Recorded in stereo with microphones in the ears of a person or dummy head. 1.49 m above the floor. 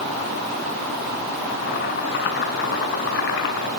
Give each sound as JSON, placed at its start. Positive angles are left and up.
{"t": 1.5, "sound": "boiling", "side_deg": 65, "distance_m": 6.5}